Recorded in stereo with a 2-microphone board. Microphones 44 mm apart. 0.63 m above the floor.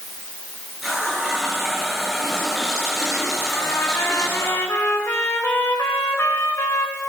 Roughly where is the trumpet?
Left.